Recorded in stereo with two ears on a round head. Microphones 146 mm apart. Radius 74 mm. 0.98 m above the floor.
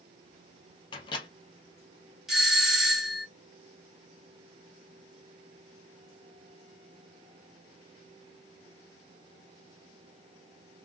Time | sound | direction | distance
0.9 | a microwave | 30° left (ahead or behind) | 0.7 m
2.3 | a doorbell | centre (ahead or behind) | 0.8 m